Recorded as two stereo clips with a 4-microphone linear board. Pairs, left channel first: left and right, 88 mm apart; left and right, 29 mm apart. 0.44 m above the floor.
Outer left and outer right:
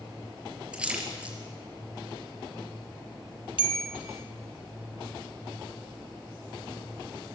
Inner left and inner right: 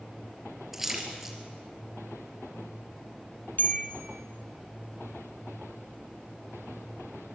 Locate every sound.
0.7 s a splash: 10° right (ahead or behind), 4 m
3.6 s a bell: 75° left (ahead or behind), 2 m